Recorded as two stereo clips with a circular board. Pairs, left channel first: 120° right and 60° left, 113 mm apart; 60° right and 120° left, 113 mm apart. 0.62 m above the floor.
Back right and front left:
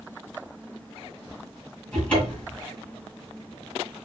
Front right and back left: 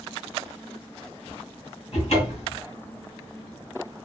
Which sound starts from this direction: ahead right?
A cupboard door, at 1.9 s.